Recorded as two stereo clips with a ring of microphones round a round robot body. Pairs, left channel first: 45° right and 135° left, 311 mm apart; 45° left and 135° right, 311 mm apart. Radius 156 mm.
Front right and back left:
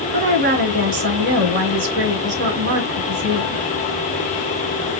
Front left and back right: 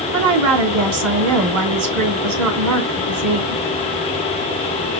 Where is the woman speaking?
170° right, 2.5 m.